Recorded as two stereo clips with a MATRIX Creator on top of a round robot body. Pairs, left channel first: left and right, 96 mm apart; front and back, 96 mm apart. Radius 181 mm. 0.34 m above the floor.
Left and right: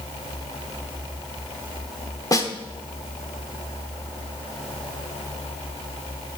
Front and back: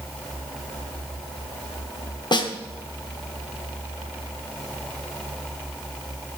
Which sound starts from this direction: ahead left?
A snare drum, at 2.3 s.